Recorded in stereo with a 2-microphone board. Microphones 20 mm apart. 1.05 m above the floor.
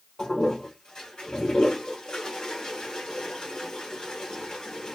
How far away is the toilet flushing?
About 1.6 m.